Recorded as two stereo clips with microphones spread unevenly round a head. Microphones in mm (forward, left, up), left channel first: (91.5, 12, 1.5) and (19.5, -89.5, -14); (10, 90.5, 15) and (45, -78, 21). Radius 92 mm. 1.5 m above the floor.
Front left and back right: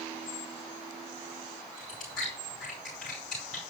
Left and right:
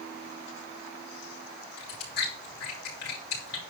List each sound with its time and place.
1.8 s chewing: 140° left, 5 m